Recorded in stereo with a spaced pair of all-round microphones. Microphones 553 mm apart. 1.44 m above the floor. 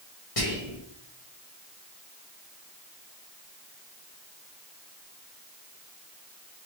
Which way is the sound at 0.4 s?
80° left.